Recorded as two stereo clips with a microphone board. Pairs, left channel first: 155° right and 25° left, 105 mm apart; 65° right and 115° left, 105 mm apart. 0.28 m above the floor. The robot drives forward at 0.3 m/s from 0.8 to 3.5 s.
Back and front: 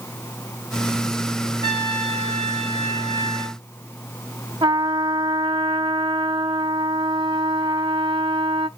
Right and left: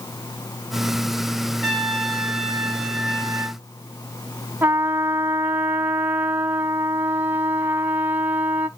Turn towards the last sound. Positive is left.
turn(degrees=50)